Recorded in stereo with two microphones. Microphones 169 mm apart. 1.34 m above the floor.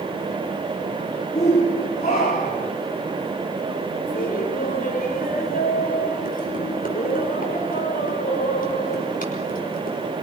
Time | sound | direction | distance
1.4 | a shout | 45° left (ahead or behind) | 3.5 m
4.1 | laughter | 55° left (ahead or behind) | 5.5 m